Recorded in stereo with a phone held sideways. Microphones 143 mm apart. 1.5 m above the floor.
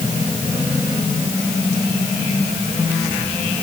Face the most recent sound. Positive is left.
No sound to turn to.